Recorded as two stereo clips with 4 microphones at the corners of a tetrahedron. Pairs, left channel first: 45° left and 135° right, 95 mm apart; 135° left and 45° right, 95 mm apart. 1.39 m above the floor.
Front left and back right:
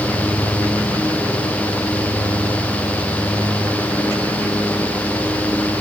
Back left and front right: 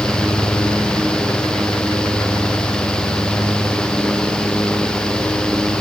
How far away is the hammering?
No hammering in this recording.